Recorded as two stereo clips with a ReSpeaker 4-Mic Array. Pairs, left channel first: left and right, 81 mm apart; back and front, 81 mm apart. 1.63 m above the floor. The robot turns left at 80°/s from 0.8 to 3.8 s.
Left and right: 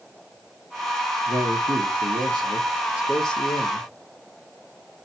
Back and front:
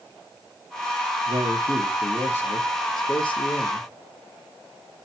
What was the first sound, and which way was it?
A man speaking, 25° right.